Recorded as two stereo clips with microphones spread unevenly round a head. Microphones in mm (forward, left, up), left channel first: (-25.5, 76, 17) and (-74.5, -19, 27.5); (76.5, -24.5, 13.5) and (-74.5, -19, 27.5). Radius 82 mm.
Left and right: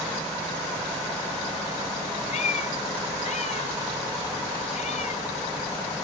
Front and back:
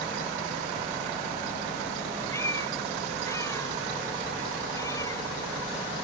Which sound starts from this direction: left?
A cat meowing, at 2.3 s.